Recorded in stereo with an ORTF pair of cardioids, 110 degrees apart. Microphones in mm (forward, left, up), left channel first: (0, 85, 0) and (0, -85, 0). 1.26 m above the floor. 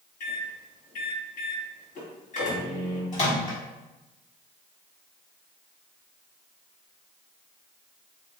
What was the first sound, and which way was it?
A microwave, 50° left.